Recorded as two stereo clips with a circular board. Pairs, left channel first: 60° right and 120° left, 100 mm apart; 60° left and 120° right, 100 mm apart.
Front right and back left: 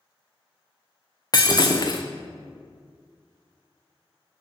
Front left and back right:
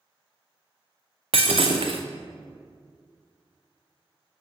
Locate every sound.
1.3 s breaking glass: 110° right, 0.9 m